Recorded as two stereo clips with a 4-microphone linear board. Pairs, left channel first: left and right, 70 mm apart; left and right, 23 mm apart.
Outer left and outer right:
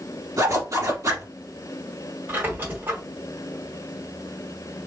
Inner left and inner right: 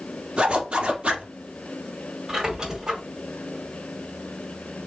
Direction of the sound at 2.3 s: 30° right (ahead or behind).